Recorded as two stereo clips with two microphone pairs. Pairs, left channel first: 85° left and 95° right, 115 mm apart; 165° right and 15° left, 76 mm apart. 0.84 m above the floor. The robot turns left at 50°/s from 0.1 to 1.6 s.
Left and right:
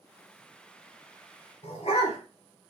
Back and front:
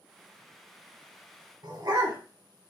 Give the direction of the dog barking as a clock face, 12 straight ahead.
10 o'clock.